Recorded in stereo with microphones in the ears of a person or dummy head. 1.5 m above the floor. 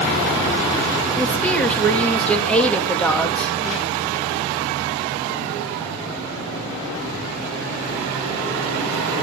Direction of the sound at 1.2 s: 10° left (ahead or behind).